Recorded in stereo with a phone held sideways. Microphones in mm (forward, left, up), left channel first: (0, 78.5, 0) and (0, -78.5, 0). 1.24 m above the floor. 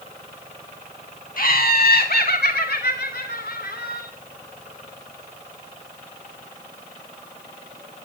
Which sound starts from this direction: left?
Laughter, at 1.4 s.